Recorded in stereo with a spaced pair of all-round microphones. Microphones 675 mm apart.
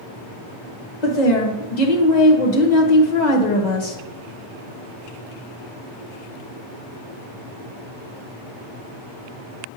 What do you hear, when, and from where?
1.0 s a woman speaking: 85° left, 1.3 m